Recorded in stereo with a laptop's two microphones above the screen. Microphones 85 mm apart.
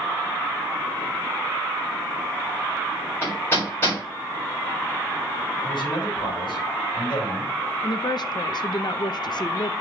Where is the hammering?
30° left (ahead or behind), 3.5 m.